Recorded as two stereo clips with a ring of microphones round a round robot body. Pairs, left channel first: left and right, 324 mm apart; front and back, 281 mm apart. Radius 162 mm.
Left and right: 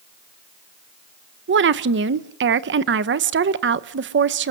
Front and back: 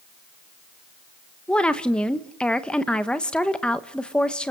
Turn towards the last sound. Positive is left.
turn(degrees=-85)